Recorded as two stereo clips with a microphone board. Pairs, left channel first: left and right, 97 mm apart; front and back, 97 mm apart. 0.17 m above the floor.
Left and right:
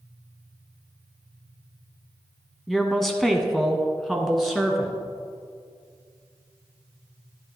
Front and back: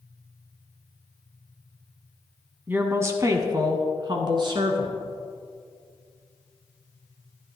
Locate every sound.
2.7 s a woman speaking: 175° left, 1.2 m; by 5.0 s straight behind, 2 m